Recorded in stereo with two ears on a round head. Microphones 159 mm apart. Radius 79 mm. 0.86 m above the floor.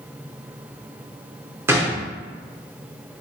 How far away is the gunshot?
About 0.6 m.